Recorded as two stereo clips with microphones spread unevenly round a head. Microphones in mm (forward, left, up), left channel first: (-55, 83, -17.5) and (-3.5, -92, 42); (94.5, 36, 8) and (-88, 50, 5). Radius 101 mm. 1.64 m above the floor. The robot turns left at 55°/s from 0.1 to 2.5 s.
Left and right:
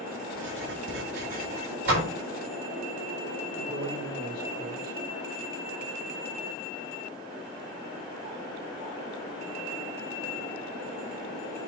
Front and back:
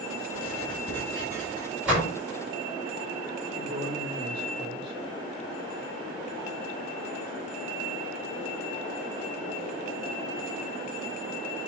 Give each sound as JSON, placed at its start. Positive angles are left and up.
{"t": 0.3, "sound": "writing", "azimuth_deg": -50, "distance_m": 6.0}
{"t": 1.9, "sound": "a door slam", "azimuth_deg": -95, "distance_m": 4.5}
{"t": 3.5, "sound": "a man speaking", "azimuth_deg": -140, "distance_m": 6.5}